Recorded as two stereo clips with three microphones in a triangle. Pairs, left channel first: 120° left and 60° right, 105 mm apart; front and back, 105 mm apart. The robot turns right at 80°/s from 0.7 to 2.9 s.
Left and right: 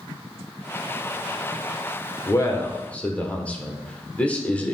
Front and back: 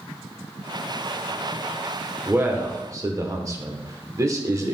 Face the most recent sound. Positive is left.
turn(degrees=-175)